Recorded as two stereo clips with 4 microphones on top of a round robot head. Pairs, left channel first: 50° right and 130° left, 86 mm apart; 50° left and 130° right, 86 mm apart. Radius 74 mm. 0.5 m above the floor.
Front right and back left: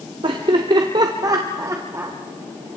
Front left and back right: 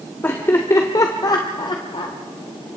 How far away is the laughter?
About 1.7 m.